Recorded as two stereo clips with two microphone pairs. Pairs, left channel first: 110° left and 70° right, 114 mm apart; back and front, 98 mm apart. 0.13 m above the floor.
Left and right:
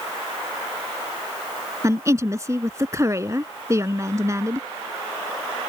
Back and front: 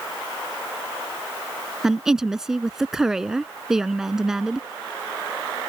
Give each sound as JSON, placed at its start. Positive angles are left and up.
{"t": 1.8, "sound": "a woman speaking", "azimuth_deg": -80}